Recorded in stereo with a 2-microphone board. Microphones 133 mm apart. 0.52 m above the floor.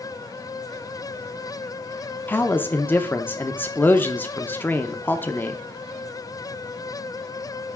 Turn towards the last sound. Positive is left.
turn(degrees=15)  # may be behind; listen again after turning